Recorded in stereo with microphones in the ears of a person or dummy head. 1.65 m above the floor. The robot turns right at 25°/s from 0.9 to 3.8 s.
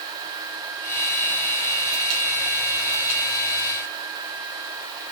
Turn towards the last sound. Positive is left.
No sound to turn to.